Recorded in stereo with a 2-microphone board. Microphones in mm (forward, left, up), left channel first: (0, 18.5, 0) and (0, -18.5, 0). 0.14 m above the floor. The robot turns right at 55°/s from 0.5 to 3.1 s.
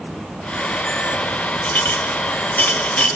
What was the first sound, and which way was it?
A clink, 50° left (ahead or behind).